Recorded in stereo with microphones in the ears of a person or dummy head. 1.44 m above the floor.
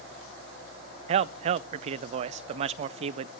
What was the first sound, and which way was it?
A man speaking, 40° right (ahead or behind).